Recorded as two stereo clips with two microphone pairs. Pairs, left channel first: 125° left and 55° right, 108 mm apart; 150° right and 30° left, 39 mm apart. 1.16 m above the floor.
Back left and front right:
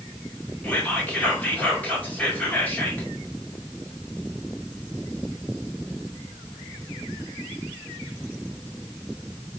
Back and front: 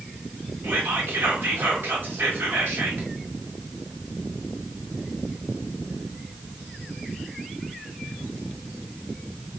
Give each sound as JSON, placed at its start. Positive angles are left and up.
{"t": 0.6, "sound": "whispering", "azimuth_deg": 50, "distance_m": 1.4}